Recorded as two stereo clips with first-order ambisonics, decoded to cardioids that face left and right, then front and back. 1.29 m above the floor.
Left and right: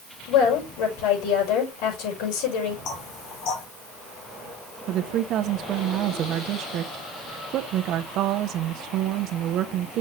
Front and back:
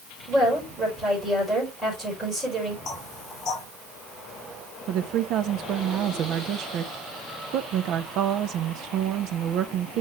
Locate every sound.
0.3 s a woman speaking: 95° left, 5.5 m
2.9 s knocking: 55° left, 3 m
4.9 s a woman speaking: 135° right, 0.9 m